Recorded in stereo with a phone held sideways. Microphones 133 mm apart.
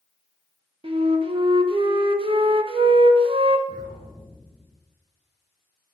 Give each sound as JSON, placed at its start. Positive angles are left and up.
{"t": 0.8, "sound": "a flute", "side_deg": -40, "distance_m": 0.7}
{"t": 3.7, "sound": "an explosion", "side_deg": -35, "distance_m": 4.5}